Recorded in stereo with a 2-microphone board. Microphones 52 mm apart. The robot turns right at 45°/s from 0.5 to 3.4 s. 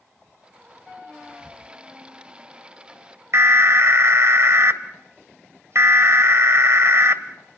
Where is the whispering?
5° left (ahead or behind), 6.5 m; by 1.6 s 10° right (ahead or behind), 6.5 m.